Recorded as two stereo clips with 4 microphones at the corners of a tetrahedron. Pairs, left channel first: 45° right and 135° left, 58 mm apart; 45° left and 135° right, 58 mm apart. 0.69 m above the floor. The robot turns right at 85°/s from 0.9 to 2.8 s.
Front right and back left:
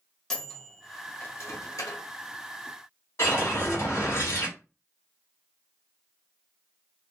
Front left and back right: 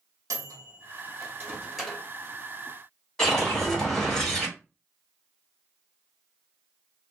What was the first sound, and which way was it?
A microwave, 125° right.